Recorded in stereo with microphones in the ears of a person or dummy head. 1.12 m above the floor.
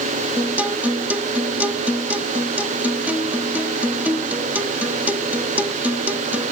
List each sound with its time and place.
0.4 s a guitar: 5° right (ahead or behind)